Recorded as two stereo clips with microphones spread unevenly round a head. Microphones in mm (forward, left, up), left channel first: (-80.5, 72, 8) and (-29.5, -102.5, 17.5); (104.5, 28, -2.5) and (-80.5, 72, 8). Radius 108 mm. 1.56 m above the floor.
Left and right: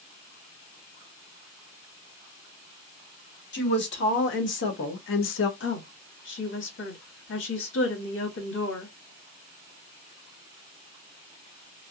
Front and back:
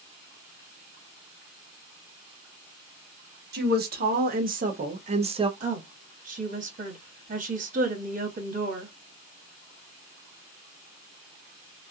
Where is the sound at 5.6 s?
120° left, 1.7 m.